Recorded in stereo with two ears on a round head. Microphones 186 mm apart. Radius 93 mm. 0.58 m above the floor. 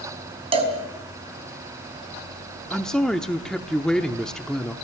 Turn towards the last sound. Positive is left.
turn(degrees=5)  # may be behind; listen again after turning